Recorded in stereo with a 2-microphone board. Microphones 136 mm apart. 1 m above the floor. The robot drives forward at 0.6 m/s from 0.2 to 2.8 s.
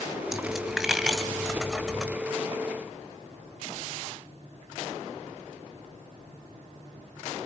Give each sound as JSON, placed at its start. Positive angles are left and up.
{"t": 0.3, "sound": "a dropped coin", "side_deg": 0, "distance_m": 2.0}